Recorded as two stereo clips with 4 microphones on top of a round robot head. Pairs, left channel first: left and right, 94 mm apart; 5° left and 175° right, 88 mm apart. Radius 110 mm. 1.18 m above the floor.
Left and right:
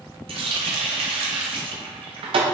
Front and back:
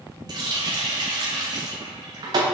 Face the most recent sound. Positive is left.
turn(degrees=-125)